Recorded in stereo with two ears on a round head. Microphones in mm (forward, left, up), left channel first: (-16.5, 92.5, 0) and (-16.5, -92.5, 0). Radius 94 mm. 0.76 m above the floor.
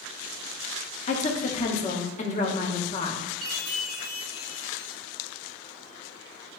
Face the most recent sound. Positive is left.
turn(degrees=-45)  # may be behind; listen again after turning